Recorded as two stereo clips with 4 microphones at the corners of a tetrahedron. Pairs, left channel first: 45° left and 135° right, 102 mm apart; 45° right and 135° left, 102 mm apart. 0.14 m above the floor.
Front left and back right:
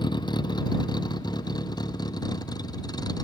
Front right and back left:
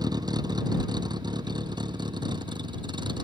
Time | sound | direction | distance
0.0 | a vehicle | 85° left | ?